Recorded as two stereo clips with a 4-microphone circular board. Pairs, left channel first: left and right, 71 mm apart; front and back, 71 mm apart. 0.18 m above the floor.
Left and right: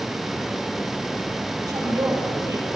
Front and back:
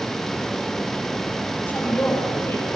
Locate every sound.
1.6 s a woman speaking: 60° right, 5 m; by 2.7 s 50° right, 5 m